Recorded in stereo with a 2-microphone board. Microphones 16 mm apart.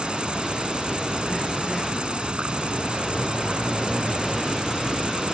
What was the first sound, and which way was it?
An insect, 85° right.